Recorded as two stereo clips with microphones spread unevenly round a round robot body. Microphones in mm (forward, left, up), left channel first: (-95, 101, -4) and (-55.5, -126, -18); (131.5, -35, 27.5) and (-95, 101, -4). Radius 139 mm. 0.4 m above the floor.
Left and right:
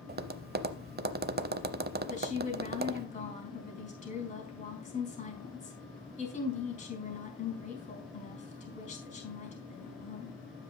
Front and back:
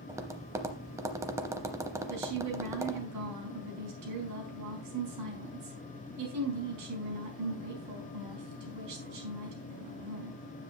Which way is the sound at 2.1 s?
160° left.